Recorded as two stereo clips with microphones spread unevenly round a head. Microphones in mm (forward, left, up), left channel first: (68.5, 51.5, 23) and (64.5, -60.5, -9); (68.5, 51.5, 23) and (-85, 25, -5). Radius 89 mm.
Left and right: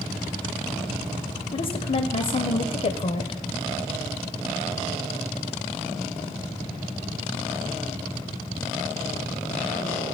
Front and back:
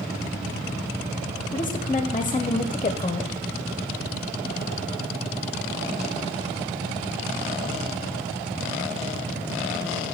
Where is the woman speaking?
65° left, 0.7 m.